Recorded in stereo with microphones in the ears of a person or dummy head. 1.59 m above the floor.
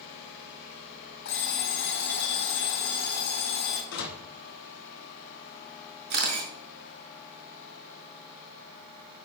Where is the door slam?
65° left (ahead or behind), 1.9 m.